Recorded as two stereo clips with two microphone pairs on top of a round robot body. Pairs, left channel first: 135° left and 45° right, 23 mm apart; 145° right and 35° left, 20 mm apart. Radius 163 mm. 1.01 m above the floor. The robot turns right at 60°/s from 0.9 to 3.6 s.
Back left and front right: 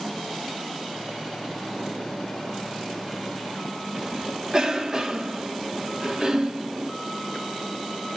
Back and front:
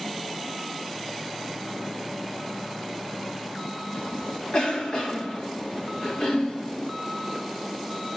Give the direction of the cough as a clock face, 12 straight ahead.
3 o'clock.